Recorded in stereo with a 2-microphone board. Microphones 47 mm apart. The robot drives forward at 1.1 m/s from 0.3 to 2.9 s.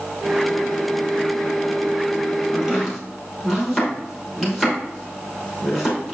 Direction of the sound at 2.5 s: 10° right (ahead or behind).